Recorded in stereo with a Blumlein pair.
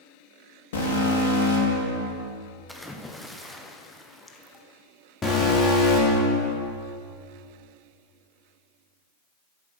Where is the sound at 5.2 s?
10° left, 3.5 m.